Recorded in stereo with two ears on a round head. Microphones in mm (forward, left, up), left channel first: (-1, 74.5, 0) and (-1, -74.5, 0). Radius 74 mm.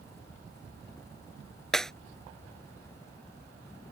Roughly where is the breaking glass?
Centre.